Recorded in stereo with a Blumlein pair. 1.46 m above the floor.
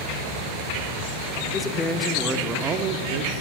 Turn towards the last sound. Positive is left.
turn(degrees=-45)